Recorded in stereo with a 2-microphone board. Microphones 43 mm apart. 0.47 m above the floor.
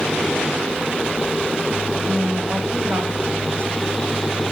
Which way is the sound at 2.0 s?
65° right (ahead or behind).